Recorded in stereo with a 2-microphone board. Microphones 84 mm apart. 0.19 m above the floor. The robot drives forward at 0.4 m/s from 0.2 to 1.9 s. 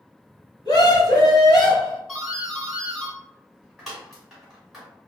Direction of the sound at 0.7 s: 55° left (ahead or behind).